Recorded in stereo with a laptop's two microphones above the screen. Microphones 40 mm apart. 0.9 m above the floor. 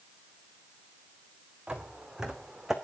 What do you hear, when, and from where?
1.7 s footsteps: 20° right (ahead or behind), 3.5 m; by 2.7 s 10° right (ahead or behind), 3 m